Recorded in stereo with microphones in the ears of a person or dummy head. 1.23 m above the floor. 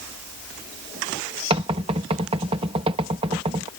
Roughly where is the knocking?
Right.